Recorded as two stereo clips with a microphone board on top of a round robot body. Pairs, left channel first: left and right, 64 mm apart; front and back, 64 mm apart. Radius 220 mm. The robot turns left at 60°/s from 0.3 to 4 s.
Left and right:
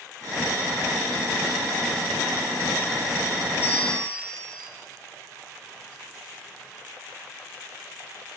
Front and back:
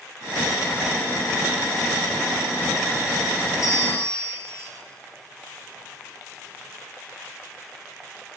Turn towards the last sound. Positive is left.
turn(degrees=15)